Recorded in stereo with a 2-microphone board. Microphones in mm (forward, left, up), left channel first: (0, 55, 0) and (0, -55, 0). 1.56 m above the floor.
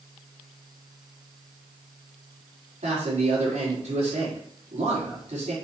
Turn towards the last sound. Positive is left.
turn(degrees=-85)